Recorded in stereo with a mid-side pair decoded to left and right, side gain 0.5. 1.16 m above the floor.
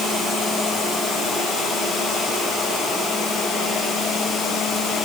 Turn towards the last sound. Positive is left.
No sound to turn to.